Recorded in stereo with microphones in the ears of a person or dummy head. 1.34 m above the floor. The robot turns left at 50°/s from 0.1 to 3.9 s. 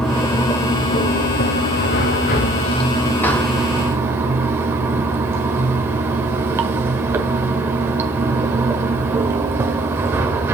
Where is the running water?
175° left, 1.5 m; by 10.6 s 15° right, 1.5 m.